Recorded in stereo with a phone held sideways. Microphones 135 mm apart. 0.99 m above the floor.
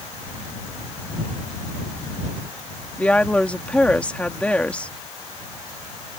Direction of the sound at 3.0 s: 10° left (ahead or behind).